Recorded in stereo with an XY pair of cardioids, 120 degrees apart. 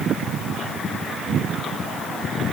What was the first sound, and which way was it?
Only background noise.